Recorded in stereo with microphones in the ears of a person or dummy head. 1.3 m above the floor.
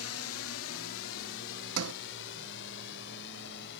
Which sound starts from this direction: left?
A drone, at 0.0 s.